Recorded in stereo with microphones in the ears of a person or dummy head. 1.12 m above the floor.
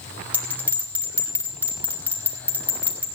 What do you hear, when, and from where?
0.3 s a bell: 10° right (ahead or behind), 3 m